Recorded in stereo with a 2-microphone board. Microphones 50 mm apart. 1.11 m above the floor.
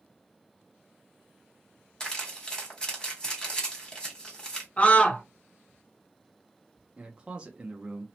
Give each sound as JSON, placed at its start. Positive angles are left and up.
{"t": 2.0, "sound": "crumpling", "side_deg": 15, "distance_m": 1.2}
{"t": 4.8, "sound": "a scream", "side_deg": 25, "distance_m": 0.6}
{"t": 7.0, "sound": "a man speaking", "side_deg": -20, "distance_m": 0.6}